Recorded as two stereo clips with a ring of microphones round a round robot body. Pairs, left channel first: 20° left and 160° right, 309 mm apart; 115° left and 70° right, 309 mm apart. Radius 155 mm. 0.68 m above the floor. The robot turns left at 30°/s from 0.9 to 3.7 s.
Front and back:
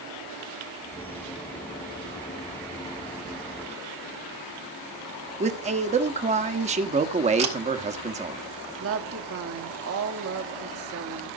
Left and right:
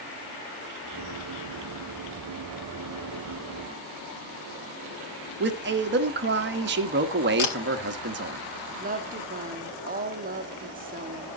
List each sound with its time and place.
5.4 s a man speaking: 100° right, 1.2 m
7.4 s a camera shutter: 130° left, 3.5 m
8.8 s a woman speaking: 125° right, 1.3 m